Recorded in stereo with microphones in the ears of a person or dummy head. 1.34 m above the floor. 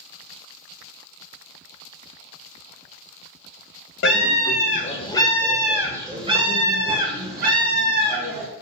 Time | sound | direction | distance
4.0 | a scream | 60° left (ahead or behind) | 0.9 m